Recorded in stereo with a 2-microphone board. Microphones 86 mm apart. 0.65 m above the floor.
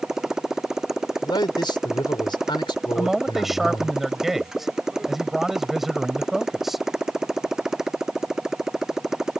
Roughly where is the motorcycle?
Centre.